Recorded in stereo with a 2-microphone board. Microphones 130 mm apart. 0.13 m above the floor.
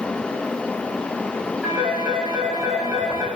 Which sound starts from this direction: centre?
A phone ringing, at 1.6 s.